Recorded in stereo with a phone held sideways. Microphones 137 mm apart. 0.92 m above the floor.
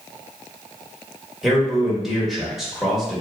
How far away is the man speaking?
About 1.5 m.